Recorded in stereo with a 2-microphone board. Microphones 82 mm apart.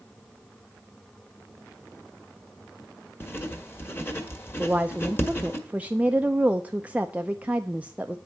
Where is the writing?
25° left (ahead or behind), 1.5 m.